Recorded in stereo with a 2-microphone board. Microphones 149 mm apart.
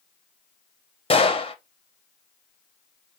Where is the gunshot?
40° left (ahead or behind), 0.8 m.